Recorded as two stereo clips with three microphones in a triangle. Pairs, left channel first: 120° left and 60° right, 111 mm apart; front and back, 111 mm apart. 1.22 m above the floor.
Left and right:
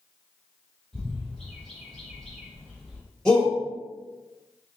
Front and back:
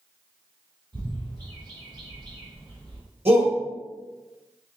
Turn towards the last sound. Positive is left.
turn(degrees=-155)